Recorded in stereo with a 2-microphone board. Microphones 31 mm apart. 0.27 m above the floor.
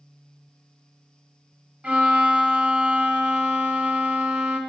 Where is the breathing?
No breathing in this recording.